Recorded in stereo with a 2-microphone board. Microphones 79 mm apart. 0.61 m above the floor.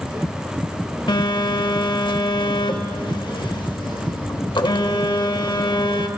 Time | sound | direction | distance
1.1 | a phone buzzing | 75° left (ahead or behind) | 0.6 m